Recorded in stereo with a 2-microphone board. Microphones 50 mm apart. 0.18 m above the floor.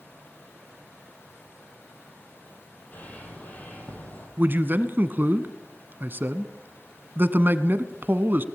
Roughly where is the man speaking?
Right.